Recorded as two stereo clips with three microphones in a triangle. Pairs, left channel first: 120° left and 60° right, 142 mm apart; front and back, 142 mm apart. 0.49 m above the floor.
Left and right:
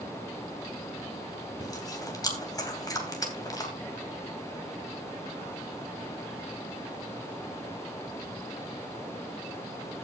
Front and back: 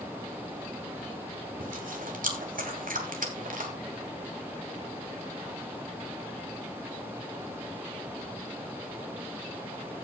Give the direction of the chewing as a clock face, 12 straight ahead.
6 o'clock.